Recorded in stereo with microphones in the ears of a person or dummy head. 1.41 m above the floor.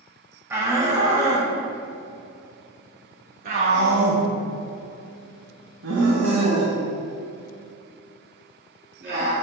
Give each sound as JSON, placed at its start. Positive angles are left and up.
{"t": 0.5, "sound": "a shout", "side_deg": -10, "distance_m": 2.0}